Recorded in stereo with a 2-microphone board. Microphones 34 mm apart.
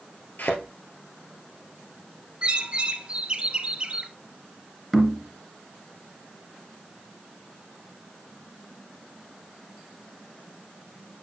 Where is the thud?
60° left (ahead or behind), 1.9 m.